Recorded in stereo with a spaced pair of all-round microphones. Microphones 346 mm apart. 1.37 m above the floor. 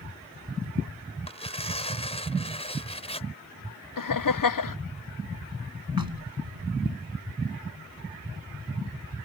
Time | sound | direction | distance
1.3 | tearing paper | 15° left (ahead or behind) | ?
4.0 | laughter | 65° left (ahead or behind) | ?
6.0 | knocking | 75° right (ahead or behind) | ?